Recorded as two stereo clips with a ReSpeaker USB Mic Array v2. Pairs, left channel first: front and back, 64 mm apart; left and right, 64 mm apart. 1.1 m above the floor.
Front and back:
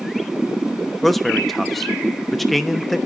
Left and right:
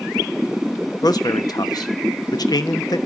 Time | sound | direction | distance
1.0 | a man speaking | 90° left | 1.1 m